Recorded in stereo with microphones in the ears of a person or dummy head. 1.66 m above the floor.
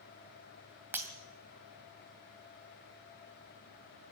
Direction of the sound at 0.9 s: 10° right (ahead or behind).